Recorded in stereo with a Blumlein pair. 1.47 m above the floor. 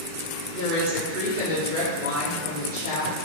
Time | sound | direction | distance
0.5 | a woman speaking | 55° right | 1.5 m